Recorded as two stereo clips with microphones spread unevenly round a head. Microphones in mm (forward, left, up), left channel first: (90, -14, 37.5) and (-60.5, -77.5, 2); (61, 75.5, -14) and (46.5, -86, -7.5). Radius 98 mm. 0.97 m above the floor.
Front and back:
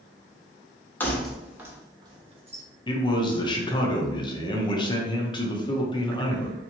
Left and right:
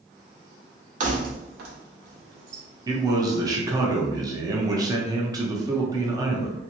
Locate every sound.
1.0 s keys jangling: 55° right, 0.8 m; by 2.6 s 105° right, 1.0 m
2.9 s a man speaking: 40° right, 0.7 m